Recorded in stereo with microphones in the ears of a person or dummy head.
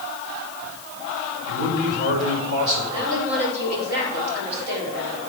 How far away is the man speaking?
About 5 m.